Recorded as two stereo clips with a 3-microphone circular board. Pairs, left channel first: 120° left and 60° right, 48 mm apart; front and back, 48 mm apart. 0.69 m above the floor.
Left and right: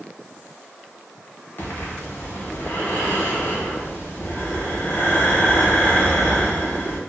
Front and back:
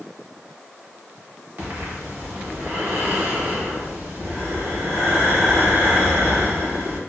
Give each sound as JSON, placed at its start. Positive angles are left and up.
{"t": 1.6, "sound": "breathing", "azimuth_deg": 155, "distance_m": 0.8}